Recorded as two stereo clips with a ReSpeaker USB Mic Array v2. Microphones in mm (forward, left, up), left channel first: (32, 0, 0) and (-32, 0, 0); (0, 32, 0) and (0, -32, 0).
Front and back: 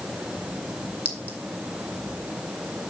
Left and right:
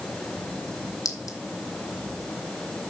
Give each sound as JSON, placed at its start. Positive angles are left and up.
{"t": 1.1, "sound": "a clink", "azimuth_deg": 65, "distance_m": 2.0}